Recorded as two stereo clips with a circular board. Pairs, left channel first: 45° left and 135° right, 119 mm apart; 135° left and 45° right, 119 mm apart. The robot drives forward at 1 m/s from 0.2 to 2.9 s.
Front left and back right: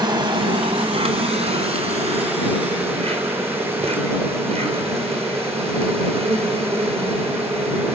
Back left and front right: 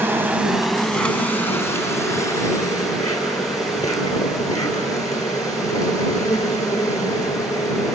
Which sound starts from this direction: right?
An insect, at 0.0 s.